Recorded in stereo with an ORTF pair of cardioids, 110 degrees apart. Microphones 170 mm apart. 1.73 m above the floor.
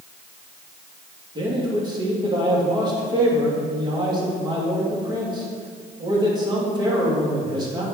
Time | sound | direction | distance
1.4 | a man speaking | 25° right | 3 m